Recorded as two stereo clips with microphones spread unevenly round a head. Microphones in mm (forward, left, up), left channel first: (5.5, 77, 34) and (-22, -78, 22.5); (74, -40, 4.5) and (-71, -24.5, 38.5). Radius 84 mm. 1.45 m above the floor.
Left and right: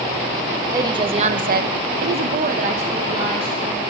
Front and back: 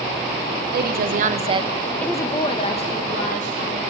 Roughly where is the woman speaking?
Behind.